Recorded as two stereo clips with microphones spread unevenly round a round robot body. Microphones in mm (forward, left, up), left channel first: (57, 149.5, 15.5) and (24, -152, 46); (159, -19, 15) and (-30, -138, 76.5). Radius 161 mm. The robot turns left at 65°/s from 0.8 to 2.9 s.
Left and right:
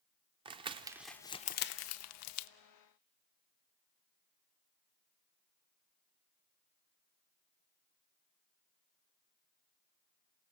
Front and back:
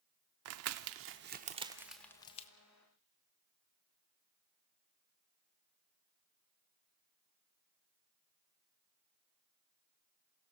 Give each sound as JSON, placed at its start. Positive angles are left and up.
{"t": 0.5, "sound": "crumpling", "azimuth_deg": -170, "distance_m": 0.5}